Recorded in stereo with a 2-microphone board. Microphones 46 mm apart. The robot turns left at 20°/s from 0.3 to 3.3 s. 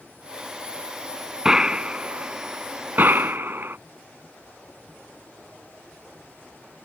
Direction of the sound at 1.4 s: 10° right (ahead or behind).